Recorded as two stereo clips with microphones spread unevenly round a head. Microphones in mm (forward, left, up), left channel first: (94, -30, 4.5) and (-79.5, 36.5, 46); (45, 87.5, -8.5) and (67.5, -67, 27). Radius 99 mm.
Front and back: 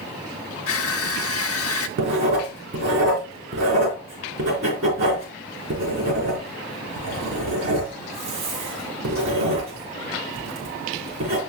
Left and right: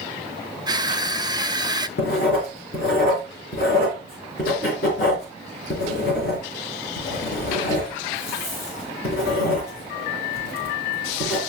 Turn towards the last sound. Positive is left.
turn(degrees=145)